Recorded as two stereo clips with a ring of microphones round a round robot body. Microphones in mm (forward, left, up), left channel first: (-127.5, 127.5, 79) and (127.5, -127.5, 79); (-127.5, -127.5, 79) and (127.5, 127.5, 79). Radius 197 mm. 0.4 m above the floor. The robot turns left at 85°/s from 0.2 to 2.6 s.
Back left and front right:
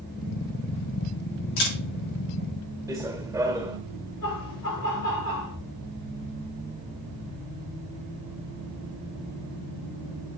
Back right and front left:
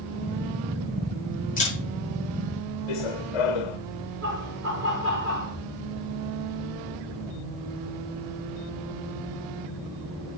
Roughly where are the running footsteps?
Behind right.